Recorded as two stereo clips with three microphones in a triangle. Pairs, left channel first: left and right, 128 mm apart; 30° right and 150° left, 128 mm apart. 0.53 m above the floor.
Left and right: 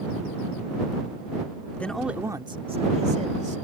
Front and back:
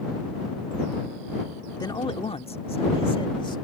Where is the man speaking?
15° left; by 3.6 s 80° right.